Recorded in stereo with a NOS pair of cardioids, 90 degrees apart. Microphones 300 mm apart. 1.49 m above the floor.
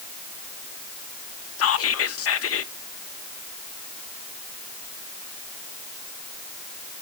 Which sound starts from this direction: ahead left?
Whispering, at 1.6 s.